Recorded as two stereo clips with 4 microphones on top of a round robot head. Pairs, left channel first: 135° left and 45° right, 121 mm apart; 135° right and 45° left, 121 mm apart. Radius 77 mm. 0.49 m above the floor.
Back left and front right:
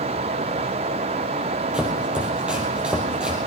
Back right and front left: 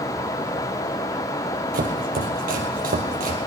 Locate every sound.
1.7 s chopping: 40° left, 2.5 m